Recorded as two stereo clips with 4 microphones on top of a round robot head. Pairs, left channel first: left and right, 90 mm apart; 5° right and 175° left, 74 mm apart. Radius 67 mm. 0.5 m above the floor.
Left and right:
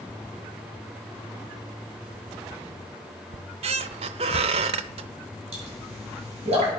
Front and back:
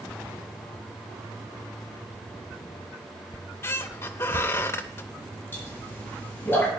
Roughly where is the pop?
Right.